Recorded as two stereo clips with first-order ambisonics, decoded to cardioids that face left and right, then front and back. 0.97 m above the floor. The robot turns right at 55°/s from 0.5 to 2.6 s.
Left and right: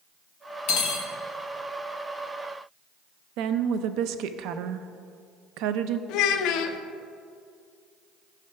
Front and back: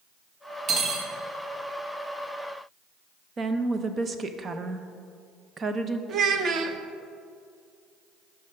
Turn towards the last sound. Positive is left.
turn(degrees=125)